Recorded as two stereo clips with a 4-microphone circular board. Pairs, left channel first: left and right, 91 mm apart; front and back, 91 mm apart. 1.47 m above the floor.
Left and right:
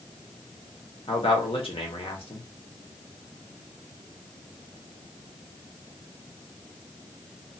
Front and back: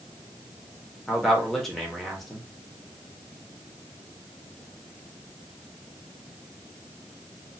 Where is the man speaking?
85° left, 1.1 m.